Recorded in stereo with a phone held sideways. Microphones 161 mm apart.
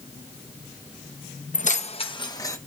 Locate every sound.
1.5 s keys jangling: 60° left (ahead or behind), 0.5 m; by 2.6 s 20° left (ahead or behind), 0.9 m